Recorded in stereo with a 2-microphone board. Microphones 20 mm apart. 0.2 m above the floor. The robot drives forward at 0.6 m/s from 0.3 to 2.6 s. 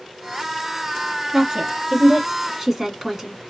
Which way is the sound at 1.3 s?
25° right (ahead or behind).